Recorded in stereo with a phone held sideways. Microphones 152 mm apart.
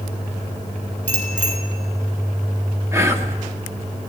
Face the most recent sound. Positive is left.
turn(degrees=-20)  # may be behind; listen again after turning